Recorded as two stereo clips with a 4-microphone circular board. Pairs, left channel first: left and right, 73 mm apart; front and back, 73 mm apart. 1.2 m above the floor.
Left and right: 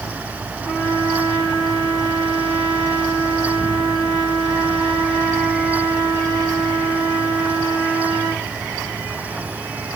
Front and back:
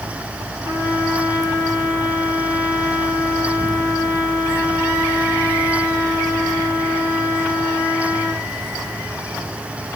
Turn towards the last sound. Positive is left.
turn(degrees=-10)